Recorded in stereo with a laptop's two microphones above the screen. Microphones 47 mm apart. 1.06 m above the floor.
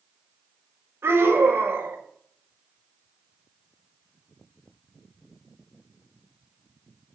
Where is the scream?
65° right (ahead or behind), 5 m.